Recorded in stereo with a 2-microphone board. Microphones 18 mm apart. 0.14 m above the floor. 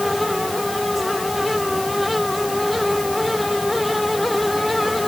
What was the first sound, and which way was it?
Only background noise.